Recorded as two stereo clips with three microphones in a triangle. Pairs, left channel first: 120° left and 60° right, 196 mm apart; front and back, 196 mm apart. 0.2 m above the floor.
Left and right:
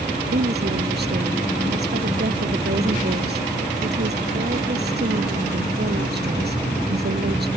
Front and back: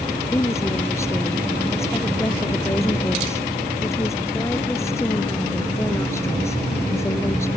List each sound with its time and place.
0.3 s a woman speaking: 75° right